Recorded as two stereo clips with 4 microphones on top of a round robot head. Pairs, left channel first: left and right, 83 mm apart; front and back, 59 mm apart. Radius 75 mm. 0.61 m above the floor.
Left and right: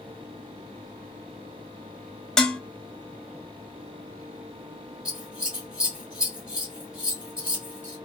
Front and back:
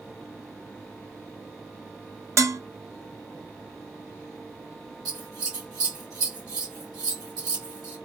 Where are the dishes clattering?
170° left, 0.6 m.